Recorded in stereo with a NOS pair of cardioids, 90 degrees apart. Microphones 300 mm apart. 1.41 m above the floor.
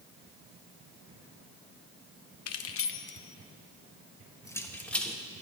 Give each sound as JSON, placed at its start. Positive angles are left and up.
{"t": 2.5, "sound": "keys jangling", "azimuth_deg": 60, "distance_m": 0.9}